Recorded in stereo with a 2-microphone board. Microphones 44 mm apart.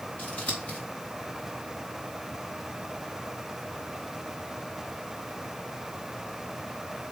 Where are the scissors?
30° left (ahead or behind), 3 m.